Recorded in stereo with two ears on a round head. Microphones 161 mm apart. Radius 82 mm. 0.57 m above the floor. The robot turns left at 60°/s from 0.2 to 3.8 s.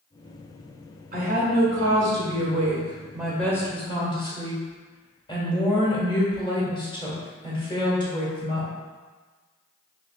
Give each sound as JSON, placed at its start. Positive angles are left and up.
{"t": 1.1, "sound": "a woman speaking", "azimuth_deg": -45, "distance_m": 1.6}